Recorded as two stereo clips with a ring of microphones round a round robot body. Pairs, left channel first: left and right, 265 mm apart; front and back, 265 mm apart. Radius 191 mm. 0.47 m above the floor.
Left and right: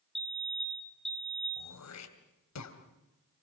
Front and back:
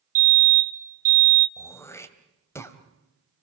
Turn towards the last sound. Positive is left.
turn(degrees=80)